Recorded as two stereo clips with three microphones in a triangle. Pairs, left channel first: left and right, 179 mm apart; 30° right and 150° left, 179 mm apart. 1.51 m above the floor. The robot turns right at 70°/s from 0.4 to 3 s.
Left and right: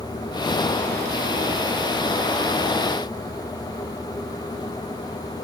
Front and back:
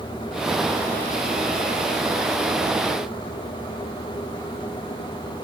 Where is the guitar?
I don't hear a guitar.